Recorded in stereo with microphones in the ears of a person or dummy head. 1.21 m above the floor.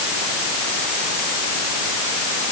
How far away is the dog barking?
No dog barking in this recording.